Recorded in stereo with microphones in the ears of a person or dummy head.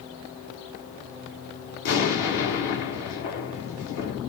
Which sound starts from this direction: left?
An explosion, at 1.8 s.